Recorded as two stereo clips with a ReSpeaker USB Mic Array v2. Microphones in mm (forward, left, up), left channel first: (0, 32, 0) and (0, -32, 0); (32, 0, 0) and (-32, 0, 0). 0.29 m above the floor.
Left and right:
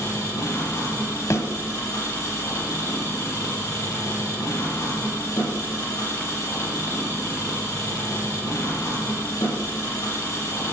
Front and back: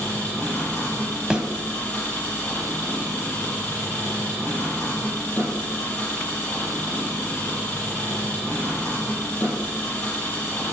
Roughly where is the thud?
Left.